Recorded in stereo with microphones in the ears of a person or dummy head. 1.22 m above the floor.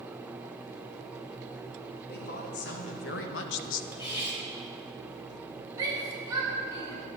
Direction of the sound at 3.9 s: 30° left (ahead or behind).